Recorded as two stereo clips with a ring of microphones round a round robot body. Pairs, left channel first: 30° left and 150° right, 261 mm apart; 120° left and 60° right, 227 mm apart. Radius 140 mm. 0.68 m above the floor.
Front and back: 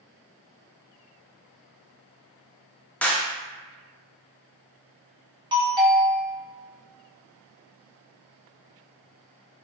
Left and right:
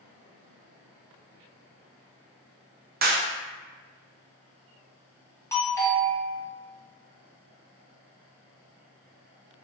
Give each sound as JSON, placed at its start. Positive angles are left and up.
{"t": 3.0, "sound": "a clap", "azimuth_deg": -50, "distance_m": 0.5}
{"t": 5.5, "sound": "a doorbell", "azimuth_deg": 175, "distance_m": 0.9}